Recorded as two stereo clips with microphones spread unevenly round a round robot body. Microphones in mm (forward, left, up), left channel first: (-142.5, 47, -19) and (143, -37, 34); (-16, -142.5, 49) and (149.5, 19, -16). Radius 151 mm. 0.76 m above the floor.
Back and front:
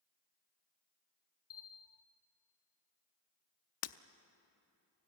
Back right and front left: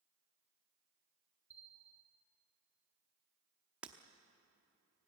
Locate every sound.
1.5 s a bell: 130° left, 0.8 m
3.8 s breaking glass: 125° left, 0.7 m